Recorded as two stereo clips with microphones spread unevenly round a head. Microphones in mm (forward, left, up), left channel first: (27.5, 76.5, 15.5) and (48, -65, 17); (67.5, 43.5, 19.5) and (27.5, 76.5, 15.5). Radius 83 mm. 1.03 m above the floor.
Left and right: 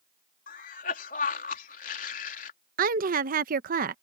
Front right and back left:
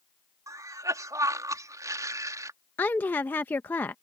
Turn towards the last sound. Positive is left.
turn(degrees=-105)